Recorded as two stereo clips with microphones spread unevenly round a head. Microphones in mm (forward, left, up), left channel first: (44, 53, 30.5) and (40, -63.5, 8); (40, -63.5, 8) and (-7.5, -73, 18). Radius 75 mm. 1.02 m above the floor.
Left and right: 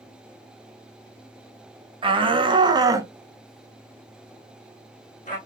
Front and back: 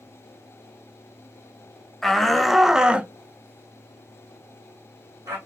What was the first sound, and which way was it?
A shout, 65° right.